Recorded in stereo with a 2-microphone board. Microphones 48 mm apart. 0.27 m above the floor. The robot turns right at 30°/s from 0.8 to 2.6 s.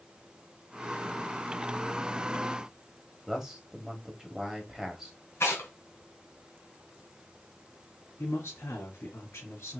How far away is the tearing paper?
About 3 m.